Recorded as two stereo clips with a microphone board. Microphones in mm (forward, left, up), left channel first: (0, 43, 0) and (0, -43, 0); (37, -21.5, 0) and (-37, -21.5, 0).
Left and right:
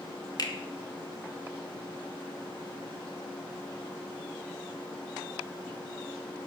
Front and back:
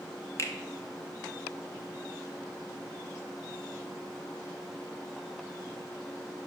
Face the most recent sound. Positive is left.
turn(degrees=50)